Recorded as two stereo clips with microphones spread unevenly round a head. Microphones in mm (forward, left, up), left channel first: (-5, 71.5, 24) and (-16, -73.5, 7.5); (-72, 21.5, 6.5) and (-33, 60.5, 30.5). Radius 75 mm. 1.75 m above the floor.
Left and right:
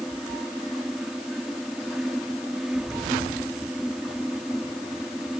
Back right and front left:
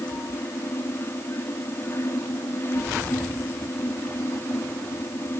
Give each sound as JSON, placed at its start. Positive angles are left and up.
{"t": 0.0, "sound": "a fan", "azimuth_deg": 180}